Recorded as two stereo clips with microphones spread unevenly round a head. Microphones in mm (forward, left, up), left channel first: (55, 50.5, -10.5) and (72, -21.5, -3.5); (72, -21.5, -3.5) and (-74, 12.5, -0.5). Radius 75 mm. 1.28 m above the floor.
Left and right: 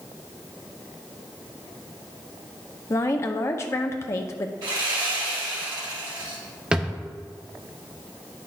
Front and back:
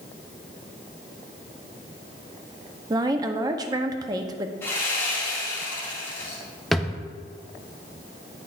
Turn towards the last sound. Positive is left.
turn(degrees=-105)